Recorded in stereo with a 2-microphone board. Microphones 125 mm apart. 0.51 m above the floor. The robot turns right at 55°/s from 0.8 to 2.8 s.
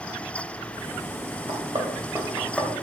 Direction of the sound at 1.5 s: 60° right (ahead or behind).